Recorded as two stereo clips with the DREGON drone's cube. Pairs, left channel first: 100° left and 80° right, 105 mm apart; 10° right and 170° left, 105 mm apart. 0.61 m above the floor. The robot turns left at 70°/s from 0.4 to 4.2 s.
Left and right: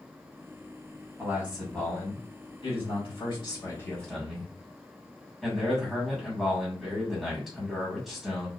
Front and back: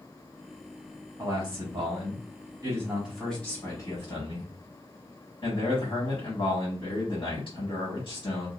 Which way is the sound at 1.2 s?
135° right.